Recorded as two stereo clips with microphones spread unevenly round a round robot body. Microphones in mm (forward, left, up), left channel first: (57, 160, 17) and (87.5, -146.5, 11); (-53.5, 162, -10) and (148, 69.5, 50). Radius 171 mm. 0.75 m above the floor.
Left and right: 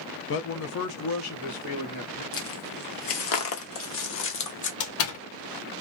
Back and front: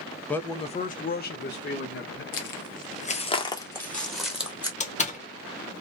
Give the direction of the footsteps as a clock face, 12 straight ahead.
8 o'clock.